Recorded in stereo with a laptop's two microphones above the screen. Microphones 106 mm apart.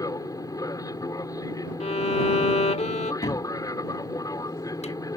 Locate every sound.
0.0 s an aircraft: 35° left (ahead or behind)
1.8 s a violin: 75° left (ahead or behind)
3.2 s a cupboard door: 85° left